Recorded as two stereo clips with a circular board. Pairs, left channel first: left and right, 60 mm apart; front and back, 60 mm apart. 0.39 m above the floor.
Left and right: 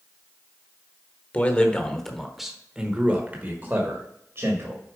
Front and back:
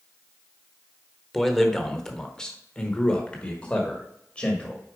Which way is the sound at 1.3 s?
85° left.